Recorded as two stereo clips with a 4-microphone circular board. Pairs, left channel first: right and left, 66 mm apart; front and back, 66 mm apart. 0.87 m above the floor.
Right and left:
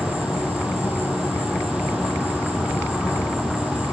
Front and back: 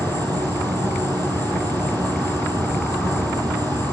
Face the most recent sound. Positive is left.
turn(degrees=170)